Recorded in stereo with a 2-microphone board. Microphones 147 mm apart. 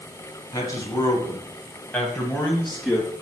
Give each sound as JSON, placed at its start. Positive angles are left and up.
{"t": 0.5, "sound": "a man speaking", "side_deg": 25, "distance_m": 2.0}